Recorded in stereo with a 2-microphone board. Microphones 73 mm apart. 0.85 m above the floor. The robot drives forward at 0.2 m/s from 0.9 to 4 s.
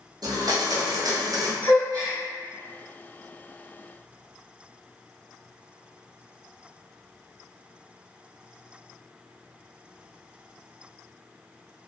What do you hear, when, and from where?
0.2 s a blender: 60° right (ahead or behind), 0.6 m
1.6 s a gasp: 55° right (ahead or behind), 1.5 m